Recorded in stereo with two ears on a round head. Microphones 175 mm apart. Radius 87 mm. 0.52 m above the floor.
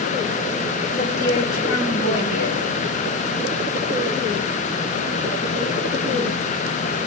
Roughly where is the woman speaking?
Left.